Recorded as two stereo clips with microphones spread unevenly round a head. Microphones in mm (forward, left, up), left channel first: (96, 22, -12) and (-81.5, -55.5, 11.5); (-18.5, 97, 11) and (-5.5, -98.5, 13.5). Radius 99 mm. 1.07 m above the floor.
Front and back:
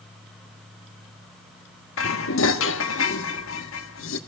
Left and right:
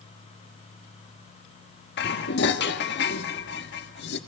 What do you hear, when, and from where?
2.0 s dishes clattering: 55° left, 1.4 m